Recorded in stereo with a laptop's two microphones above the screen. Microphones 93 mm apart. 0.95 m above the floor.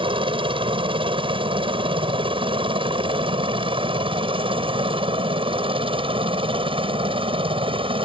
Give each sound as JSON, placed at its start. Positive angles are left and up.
{"t": 0.0, "sound": "a helicopter", "side_deg": -65}